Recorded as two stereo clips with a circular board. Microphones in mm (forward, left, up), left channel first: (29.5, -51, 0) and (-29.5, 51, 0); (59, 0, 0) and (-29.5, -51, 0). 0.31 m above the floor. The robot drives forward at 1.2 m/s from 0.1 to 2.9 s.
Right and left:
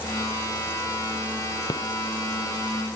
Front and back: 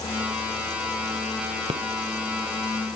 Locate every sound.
1.7 s a rattle: 115° right; by 1.9 s 120° right